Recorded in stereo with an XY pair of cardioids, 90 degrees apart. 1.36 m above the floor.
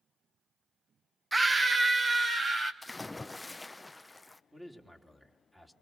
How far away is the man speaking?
About 3.5 m.